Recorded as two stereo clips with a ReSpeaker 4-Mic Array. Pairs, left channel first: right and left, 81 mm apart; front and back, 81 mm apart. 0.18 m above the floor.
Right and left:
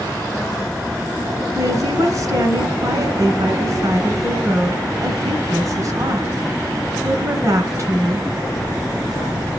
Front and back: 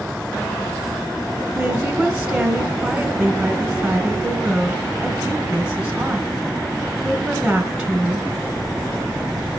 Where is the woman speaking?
100° left, 2.0 m.